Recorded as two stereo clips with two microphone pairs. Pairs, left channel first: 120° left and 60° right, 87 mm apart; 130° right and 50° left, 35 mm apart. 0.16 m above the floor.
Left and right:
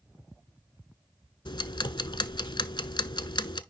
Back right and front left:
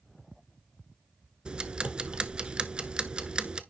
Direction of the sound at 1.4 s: 115° left.